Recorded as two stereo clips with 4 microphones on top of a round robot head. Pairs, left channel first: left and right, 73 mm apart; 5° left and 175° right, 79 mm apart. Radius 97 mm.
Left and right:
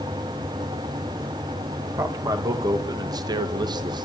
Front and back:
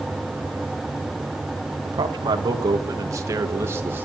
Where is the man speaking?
140° right, 2 m; by 4.1 s 105° right, 2.0 m.